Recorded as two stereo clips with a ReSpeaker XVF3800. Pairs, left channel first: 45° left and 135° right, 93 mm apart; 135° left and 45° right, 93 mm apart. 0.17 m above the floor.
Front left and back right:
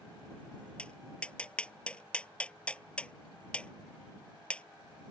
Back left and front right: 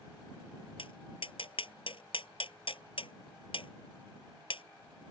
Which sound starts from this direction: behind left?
Tapping, at 0.8 s.